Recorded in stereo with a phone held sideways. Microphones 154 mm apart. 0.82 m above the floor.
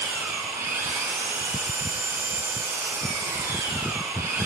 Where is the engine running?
20° right (ahead or behind), 4.5 m.